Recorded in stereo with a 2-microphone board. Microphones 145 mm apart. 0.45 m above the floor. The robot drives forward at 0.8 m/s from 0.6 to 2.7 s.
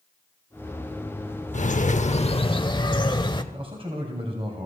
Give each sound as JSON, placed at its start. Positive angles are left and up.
{"t": 1.5, "sound": "a bird", "side_deg": 55, "distance_m": 0.6}
{"t": 3.5, "sound": "a man speaking", "side_deg": -40, "distance_m": 2.5}